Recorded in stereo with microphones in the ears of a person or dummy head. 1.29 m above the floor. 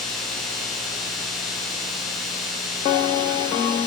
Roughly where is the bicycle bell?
I don't hear a bicycle bell.